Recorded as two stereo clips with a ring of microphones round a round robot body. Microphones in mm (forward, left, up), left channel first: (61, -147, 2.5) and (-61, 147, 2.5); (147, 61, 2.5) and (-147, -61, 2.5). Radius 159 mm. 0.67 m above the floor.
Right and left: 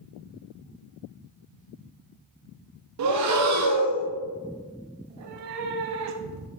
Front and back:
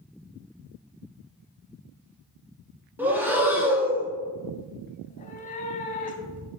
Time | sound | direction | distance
3.0 | breathing | 120° left | 0.7 m
5.0 | a cat meowing | 85° left | 0.8 m